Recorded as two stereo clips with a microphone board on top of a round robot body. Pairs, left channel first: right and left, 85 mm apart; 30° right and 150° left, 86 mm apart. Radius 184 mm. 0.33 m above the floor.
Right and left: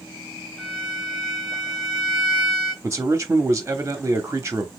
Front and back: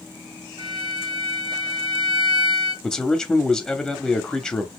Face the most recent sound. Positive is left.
turn(degrees=45)